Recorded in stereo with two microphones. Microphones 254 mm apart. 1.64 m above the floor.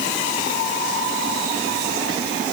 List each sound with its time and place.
Only background noise.